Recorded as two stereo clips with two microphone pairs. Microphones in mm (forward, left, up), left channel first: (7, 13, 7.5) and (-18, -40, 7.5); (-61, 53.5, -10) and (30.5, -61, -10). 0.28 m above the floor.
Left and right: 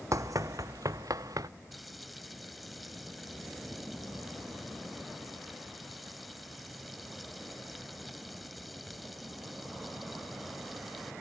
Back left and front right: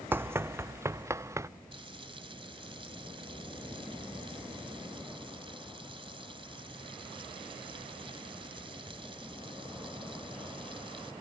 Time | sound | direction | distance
0.1 | running footsteps | 125° right | ?
1.7 | frying | 25° right | ?